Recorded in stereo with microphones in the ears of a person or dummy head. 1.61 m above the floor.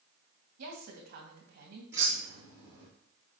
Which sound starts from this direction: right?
A woman speaking, at 0.6 s.